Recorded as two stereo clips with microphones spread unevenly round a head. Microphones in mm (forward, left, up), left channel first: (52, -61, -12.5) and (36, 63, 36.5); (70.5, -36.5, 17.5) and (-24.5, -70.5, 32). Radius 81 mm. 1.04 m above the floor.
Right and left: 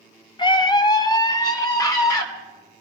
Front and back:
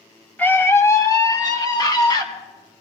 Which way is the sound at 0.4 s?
50° right.